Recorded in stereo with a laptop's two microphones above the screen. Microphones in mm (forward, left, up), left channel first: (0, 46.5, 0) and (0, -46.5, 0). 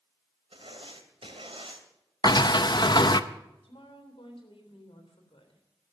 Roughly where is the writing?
Right.